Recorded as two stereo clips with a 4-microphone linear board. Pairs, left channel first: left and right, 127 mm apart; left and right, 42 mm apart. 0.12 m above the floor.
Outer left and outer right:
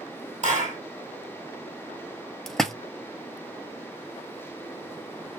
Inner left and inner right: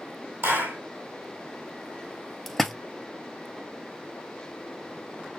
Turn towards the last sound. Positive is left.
turn(degrees=0)  # may be behind; listen again after turning